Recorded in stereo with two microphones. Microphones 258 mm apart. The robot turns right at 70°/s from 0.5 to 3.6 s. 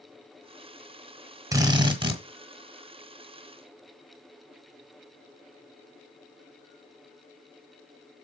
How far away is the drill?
About 1.2 m.